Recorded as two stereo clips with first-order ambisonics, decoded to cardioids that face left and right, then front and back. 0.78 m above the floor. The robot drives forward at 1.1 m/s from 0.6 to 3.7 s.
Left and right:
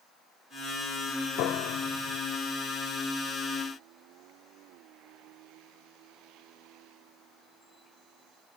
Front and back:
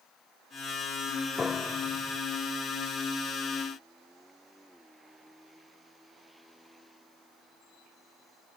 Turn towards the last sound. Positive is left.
turn(degrees=130)